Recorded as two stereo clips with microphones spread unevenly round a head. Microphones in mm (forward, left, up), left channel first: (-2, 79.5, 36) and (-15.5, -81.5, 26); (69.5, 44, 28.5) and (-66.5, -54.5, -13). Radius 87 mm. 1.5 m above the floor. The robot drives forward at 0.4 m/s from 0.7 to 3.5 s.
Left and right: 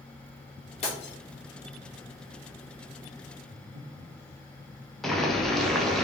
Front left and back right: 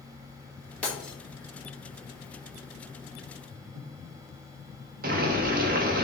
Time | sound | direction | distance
0.8 | breaking glass | 95° left | 1.0 m
3.5 | breathing | 140° right | 1.0 m
5.0 | boiling | 175° left | 0.6 m